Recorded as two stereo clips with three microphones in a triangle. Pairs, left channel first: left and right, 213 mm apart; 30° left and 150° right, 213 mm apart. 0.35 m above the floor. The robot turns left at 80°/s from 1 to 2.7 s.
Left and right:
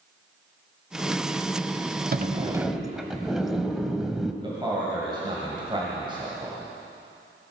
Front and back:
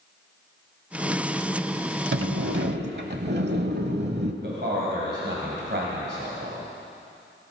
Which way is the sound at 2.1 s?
130° right.